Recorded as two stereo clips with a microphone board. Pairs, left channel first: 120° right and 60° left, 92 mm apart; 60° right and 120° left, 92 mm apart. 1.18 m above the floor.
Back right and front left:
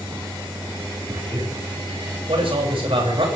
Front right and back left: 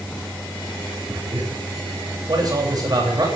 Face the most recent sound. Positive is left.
turn(degrees=75)